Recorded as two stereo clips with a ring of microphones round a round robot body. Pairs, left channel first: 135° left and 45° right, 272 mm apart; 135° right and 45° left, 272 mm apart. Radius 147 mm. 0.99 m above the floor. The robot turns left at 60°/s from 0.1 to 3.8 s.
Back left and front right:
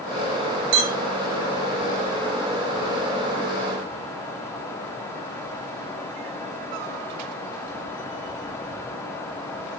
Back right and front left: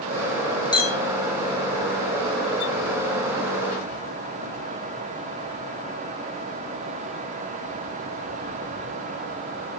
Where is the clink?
60° right, 1.8 m; by 1.0 s 75° right, 1.8 m.